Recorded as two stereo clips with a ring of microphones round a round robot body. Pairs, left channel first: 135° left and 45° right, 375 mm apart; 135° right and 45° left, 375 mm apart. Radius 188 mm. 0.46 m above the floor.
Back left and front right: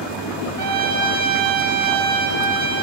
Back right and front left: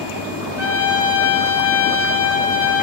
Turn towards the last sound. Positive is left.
turn(degrees=-110)